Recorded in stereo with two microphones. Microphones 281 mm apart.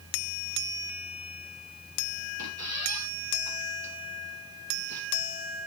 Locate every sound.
2.4 s a squeak: 70° right (ahead or behind), 1.7 m